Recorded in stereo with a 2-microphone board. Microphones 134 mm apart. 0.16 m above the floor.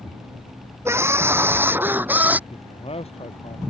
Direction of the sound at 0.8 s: 20° right (ahead or behind).